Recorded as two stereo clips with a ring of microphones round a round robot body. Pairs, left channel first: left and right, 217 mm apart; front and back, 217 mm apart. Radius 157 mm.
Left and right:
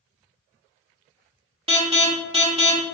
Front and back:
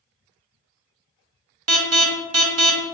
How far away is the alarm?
About 0.7 m.